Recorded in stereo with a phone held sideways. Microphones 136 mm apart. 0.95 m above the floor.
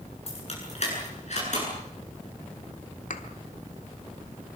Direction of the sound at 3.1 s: 70° left (ahead or behind).